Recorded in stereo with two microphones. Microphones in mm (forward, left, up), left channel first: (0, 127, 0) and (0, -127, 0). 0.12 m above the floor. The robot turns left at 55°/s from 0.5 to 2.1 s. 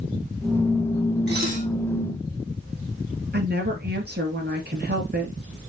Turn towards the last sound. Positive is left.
turn(degrees=-40)  # may be behind; listen again after turning